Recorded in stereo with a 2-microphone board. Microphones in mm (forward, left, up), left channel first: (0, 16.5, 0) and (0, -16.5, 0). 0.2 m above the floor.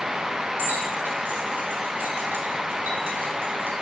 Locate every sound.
0.6 s keys jangling: 75° right (ahead or behind), 5 m; by 3.7 s 70° right (ahead or behind), 2.5 m